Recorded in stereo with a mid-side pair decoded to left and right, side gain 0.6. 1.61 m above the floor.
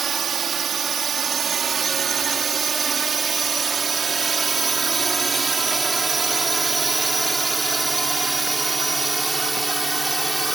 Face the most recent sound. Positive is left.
turn(degrees=-10)